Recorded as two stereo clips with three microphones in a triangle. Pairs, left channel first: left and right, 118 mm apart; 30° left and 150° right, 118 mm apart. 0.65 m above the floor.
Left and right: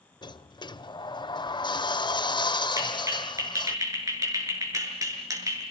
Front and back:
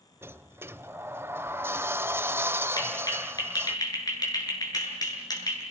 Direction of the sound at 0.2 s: 140° left.